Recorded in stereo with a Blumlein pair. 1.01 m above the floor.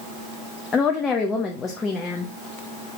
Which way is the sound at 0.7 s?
20° left.